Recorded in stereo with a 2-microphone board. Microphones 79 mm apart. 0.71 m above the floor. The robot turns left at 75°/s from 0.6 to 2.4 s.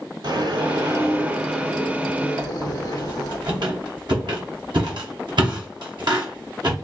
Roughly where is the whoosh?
Right.